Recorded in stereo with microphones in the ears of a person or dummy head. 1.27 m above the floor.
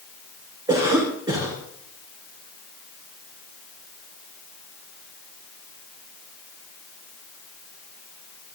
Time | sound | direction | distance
0.7 | a cough | 20° right (ahead or behind) | 5 m